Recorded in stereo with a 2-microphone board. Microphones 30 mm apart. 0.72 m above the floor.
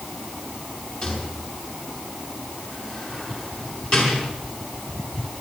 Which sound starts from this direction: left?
A rattle, at 1.0 s.